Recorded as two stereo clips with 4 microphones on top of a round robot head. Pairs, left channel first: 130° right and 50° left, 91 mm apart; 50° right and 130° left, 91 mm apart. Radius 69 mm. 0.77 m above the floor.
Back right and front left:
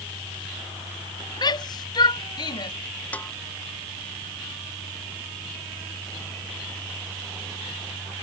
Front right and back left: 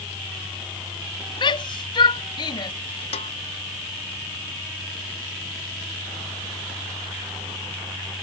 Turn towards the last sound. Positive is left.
turn(degrees=-55)